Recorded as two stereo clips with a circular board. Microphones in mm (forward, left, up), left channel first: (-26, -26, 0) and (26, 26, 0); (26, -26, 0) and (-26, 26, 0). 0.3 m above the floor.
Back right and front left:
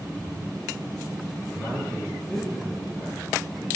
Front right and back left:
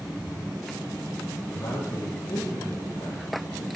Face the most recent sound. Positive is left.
turn(degrees=-65)